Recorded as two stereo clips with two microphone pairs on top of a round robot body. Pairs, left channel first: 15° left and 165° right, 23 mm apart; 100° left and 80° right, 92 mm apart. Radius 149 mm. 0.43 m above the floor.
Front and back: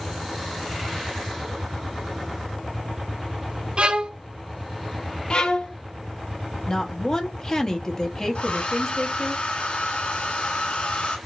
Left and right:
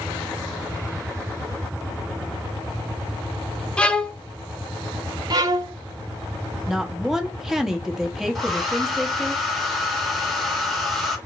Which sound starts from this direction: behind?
A violin, at 3.8 s.